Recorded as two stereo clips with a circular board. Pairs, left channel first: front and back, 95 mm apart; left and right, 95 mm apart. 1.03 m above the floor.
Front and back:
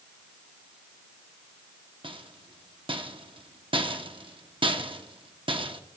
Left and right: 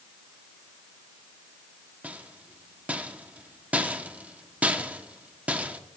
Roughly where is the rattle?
Behind.